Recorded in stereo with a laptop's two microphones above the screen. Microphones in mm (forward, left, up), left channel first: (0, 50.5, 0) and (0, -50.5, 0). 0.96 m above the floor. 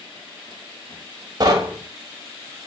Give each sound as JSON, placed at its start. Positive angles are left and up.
{"t": 1.4, "sound": "knocking", "side_deg": -40, "distance_m": 0.7}